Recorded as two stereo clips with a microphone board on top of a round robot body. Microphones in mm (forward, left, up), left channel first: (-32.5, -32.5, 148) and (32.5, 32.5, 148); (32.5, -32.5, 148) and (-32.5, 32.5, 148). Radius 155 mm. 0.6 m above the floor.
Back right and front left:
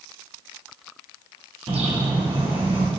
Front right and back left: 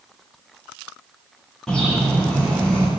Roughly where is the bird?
Ahead left.